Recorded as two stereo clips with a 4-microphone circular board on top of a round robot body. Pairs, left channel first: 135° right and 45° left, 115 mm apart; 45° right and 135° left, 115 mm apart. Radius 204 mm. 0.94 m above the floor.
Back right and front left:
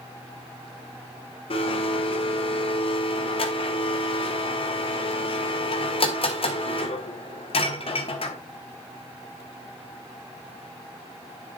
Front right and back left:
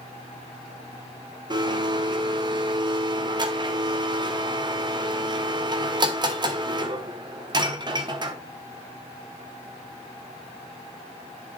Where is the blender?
175° right, 1.5 m.